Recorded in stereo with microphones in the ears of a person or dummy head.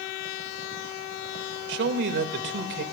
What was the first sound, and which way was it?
A man speaking, 65° right (ahead or behind).